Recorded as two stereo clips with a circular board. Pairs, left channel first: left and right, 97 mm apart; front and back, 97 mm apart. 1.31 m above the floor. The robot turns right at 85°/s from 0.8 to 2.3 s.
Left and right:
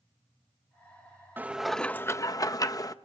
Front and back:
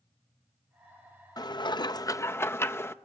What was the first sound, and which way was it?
Dishes clattering, 25° right.